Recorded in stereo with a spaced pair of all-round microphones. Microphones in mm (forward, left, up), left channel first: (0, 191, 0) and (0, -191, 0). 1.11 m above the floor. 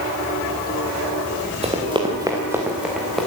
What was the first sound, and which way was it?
Running footsteps, 15° right (ahead or behind).